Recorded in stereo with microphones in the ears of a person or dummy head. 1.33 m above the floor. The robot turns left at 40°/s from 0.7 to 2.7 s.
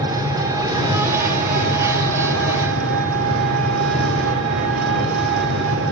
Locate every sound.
0.0 s an engine running: 20° right, 3 m; by 5.9 s 100° right, 3 m